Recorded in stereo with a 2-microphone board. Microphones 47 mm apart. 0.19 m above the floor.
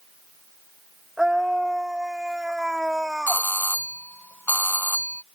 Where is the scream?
10° right (ahead or behind).